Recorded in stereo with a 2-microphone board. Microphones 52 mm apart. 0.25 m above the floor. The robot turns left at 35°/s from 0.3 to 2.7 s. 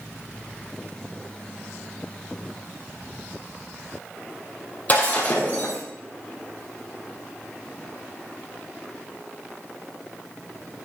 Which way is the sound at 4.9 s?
35° left (ahead or behind).